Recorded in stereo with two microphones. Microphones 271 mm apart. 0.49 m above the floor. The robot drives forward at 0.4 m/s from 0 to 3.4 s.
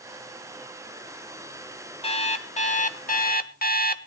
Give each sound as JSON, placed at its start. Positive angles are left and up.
{"t": 2.0, "sound": "an alarm clock", "side_deg": 20, "distance_m": 1.1}